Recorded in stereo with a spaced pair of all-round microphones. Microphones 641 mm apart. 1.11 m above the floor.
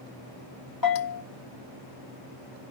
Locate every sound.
0.8 s a bell: 30° left (ahead or behind), 1.0 m